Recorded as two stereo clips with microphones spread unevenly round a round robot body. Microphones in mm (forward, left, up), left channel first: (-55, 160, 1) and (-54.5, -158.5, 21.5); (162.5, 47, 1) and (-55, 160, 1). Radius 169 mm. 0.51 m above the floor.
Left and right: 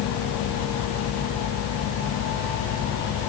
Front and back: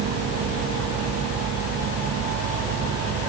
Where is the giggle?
I don't hear a giggle.